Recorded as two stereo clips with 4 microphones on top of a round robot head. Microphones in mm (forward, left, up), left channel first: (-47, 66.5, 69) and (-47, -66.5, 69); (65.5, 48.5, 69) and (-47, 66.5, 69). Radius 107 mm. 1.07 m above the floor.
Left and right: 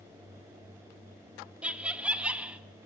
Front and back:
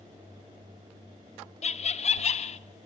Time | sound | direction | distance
1.6 | laughter | 10° right | 1.5 m